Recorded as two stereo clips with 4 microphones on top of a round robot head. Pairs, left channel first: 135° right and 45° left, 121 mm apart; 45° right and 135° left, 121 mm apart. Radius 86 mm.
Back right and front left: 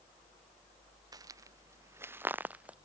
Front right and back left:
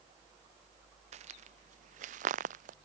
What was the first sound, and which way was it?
Footsteps, 105° left.